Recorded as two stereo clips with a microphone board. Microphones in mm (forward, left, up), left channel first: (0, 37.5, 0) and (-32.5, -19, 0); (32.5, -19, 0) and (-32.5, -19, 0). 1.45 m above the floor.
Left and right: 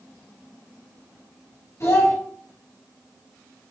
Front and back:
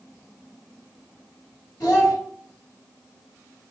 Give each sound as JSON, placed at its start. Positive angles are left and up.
{"t": 1.8, "sound": "a child speaking", "azimuth_deg": 15, "distance_m": 2.0}